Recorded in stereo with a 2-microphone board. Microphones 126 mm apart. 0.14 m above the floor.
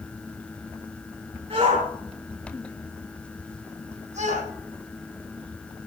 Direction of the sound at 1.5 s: 55° right (ahead or behind).